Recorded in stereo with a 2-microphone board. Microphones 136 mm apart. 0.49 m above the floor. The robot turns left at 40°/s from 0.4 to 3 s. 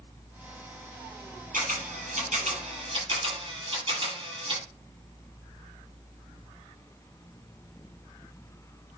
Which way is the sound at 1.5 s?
80° right.